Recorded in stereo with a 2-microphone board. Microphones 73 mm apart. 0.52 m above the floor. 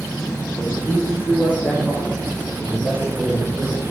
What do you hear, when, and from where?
0.6 s a man speaking: 35° left (ahead or behind), 6.5 m; by 3.8 s 15° left (ahead or behind), 9 m